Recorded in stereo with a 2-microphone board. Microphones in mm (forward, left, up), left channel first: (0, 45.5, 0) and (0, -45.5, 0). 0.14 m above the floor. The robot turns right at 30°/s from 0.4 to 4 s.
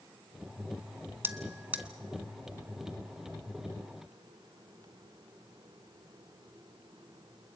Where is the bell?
25° right (ahead or behind), 0.9 m; by 1.9 s 15° right (ahead or behind), 0.9 m.